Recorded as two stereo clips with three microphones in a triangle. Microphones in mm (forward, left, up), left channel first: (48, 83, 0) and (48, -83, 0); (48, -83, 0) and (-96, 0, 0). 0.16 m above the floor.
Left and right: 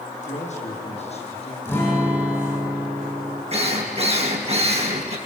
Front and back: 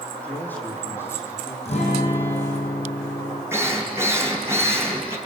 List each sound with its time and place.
0.2 s a man speaking: 50° left, 6.5 m; by 1.6 s 40° left, 7 m
1.6 s a guitar: 15° left, 8 m
3.5 s a drill: 135° right, 3 m